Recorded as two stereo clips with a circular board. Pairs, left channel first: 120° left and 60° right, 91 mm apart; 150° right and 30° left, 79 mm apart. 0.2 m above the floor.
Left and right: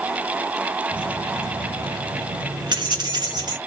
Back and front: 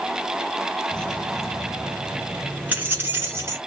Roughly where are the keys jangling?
Right.